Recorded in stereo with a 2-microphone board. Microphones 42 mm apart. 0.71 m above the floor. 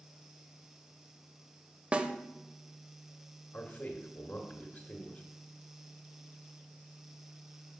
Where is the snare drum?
30° right (ahead or behind), 0.5 m.